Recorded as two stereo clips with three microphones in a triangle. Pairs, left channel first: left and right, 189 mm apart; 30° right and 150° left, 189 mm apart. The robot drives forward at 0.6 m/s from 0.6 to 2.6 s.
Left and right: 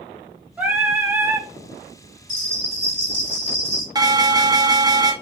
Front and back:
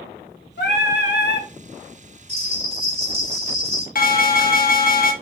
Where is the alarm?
25° right, 0.9 m.